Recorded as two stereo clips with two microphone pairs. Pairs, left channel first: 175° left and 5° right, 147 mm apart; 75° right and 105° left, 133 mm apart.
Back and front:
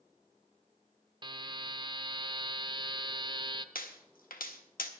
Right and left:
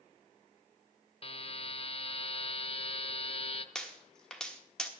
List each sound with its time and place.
1.2 s a buzzer: 50° right, 0.6 m
3.8 s a pop: 165° right, 1.3 m